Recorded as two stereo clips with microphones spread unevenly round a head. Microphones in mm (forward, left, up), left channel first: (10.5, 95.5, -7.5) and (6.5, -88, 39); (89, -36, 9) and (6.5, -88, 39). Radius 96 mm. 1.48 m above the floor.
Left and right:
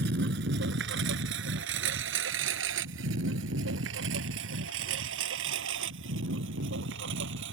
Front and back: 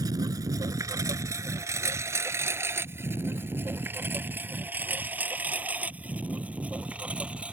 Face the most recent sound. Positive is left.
turn(degrees=-75)